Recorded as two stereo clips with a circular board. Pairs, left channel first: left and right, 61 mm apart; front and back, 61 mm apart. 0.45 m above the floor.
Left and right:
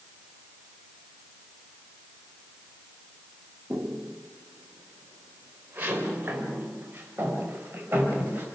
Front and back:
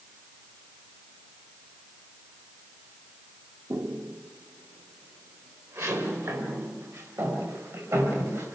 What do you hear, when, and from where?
3.7 s footsteps: 155° right, 1.9 m; by 8.4 s 150° right, 8 m